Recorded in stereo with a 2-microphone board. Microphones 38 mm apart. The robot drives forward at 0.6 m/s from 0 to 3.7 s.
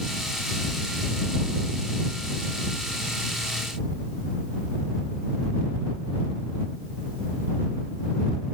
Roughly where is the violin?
No violin in this recording.